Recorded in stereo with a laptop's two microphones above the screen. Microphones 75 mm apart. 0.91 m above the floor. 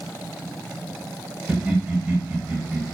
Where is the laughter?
20° right (ahead or behind), 0.8 m.